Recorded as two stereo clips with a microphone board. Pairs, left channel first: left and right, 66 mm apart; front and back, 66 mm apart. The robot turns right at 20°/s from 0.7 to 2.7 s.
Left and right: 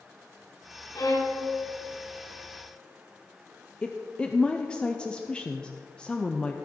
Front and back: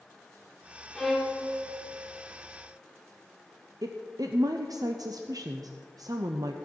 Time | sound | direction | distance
0.9 | a violin | 85° left | 1.9 m
3.8 | a woman speaking | 165° left | 0.7 m